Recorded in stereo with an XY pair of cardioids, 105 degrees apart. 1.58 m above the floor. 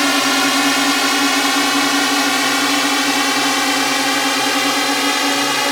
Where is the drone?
5° left.